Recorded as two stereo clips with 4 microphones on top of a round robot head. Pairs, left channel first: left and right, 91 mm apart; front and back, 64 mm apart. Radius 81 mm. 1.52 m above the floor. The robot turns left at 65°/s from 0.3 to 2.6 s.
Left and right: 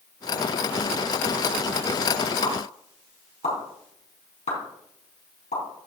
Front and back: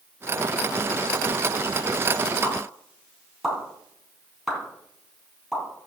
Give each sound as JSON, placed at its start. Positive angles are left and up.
{"t": 2.4, "sound": "a pop", "azimuth_deg": 100, "distance_m": 4.0}